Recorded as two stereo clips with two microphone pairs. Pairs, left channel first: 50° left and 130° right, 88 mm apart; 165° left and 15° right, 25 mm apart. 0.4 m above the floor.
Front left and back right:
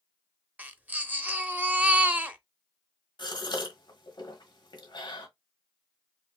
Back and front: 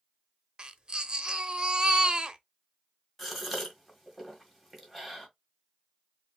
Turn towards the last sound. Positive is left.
turn(degrees=80)